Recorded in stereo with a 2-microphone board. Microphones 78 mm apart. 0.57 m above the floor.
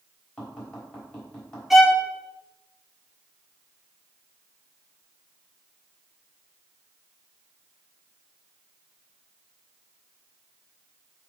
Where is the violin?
Centre (ahead or behind), 1.3 m.